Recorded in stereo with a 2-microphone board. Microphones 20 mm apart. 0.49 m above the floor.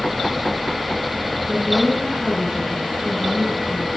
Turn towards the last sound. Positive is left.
turn(degrees=-40)  # may be behind; listen again after turning